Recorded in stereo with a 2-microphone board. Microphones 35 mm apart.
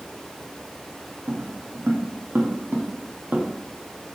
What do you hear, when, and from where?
1.3 s footsteps: 75° right (ahead or behind), 3.5 m; by 4.2 s 40° right (ahead or behind), 4 m